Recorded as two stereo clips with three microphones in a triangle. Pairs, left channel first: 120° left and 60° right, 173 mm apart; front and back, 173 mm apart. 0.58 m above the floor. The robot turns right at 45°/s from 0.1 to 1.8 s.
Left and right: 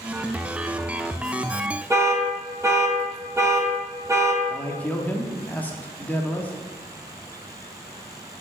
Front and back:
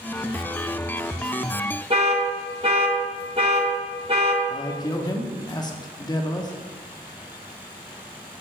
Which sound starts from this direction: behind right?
An alarm, at 1.9 s.